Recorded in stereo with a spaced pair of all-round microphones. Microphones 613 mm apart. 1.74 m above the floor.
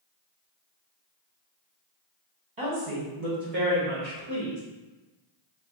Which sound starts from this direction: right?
A woman speaking, at 2.6 s.